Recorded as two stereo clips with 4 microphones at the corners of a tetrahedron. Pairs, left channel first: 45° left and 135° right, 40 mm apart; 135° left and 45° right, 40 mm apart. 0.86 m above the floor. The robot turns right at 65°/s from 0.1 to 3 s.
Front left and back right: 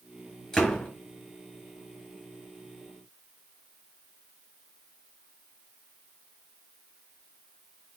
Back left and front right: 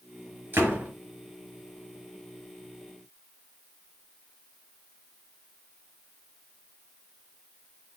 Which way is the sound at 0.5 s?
30° right.